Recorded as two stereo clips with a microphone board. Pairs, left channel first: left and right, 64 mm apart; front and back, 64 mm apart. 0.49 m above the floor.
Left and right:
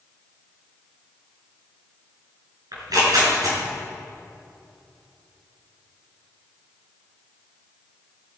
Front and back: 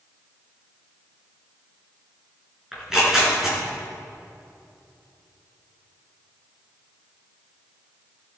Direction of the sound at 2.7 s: 95° right.